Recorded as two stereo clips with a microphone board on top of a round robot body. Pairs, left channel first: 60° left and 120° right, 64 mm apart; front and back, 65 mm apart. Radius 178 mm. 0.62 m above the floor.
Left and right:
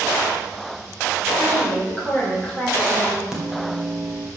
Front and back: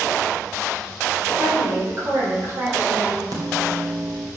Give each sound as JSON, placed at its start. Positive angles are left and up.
{"t": 1.4, "sound": "a woman speaking", "azimuth_deg": 125, "distance_m": 3.5}
{"t": 3.3, "sound": "a microwave", "azimuth_deg": 155, "distance_m": 2.5}